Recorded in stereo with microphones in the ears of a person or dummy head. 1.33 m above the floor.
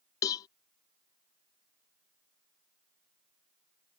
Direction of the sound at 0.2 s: 20° left (ahead or behind).